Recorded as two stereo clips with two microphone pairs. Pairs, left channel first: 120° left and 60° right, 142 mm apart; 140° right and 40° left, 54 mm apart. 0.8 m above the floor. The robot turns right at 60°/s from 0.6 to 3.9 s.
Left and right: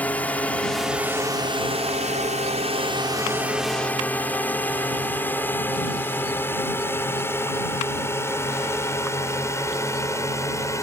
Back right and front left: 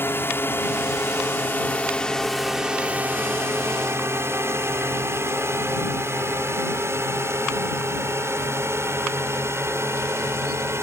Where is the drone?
165° right; by 10.8 s 55° left.